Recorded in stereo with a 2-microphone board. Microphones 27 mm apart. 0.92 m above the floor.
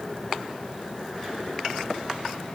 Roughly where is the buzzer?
No buzzer in this recording.